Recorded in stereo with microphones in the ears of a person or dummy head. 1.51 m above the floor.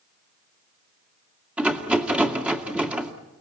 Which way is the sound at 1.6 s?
Centre (ahead or behind).